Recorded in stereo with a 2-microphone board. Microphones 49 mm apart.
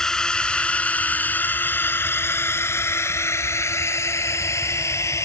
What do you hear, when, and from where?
0.0 s a drone: 10° left (ahead or behind); by 5.3 s 75° left (ahead or behind)